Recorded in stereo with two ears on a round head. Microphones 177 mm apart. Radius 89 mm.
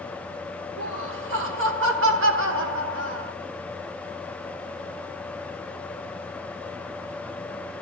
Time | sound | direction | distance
0.8 | laughter | 70° right (ahead or behind) | 2 m